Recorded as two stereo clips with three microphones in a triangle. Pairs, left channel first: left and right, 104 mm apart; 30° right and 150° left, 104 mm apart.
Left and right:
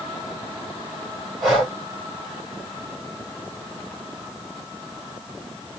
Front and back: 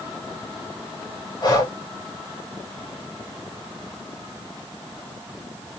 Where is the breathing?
Straight ahead, 1.7 m.